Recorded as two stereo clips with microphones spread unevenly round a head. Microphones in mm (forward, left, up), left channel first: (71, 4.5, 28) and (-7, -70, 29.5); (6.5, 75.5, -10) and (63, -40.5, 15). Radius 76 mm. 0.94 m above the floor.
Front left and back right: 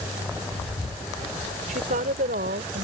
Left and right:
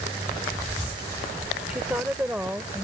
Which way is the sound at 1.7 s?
145° right.